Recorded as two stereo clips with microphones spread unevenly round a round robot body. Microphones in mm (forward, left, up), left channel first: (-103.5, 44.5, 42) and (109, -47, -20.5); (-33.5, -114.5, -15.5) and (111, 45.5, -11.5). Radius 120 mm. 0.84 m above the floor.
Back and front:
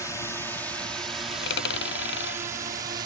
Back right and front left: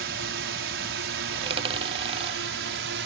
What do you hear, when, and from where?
0.0 s a drone: 70° left; by 3.1 s 35° left
1.3 s a dropped coin: 115° left